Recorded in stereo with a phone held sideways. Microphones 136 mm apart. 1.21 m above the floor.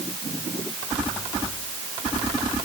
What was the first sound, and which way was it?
Only background noise.